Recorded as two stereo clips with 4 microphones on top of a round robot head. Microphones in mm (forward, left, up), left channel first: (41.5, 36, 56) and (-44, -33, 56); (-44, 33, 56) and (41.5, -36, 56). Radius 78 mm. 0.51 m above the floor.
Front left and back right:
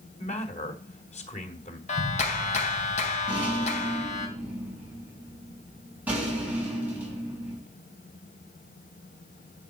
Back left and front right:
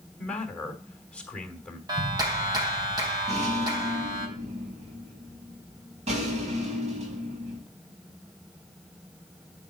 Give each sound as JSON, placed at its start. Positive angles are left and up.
{"t": 0.2, "sound": "a man speaking", "azimuth_deg": 60, "distance_m": 3.0}
{"t": 1.9, "sound": "a clap", "azimuth_deg": 20, "distance_m": 3.5}
{"t": 3.3, "sound": "a rattle", "azimuth_deg": -65, "distance_m": 5.0}